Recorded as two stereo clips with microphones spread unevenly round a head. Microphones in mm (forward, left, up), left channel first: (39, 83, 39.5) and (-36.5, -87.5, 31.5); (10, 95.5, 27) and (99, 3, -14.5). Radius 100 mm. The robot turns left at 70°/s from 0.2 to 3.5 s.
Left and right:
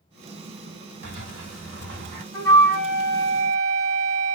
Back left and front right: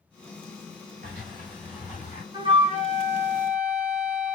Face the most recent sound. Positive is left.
turn(degrees=-90)